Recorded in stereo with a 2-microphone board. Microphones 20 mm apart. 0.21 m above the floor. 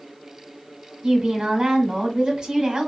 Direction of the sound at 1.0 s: 30° right (ahead or behind).